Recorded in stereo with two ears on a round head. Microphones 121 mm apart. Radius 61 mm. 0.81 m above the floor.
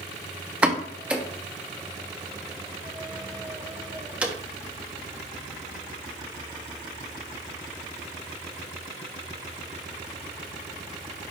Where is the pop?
10° right (ahead or behind), 0.8 m.